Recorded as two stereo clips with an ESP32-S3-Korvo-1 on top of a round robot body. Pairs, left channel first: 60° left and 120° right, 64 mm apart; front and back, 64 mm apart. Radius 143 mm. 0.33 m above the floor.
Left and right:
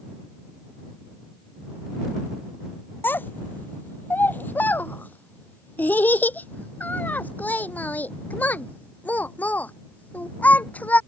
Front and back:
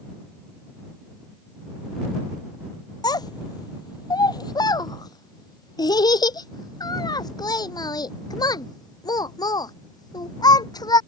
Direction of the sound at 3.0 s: Straight ahead.